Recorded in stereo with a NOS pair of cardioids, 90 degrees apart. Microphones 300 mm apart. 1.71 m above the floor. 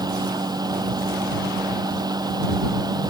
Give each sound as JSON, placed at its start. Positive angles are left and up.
{"t": 0.0, "sound": "a fan", "azimuth_deg": -15}